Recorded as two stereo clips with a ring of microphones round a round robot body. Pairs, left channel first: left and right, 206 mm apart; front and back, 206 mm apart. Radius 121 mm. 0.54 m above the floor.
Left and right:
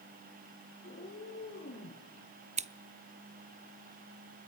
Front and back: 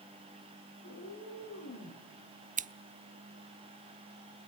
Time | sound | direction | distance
0.8 | a cat meowing | 30° left | 9 m
2.6 | scissors | 140° right | 0.8 m